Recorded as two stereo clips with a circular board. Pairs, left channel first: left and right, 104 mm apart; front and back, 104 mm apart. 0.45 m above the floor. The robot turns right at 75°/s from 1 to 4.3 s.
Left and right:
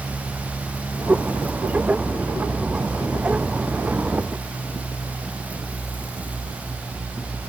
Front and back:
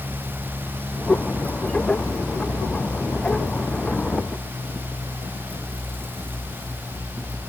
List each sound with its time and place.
Only background noise.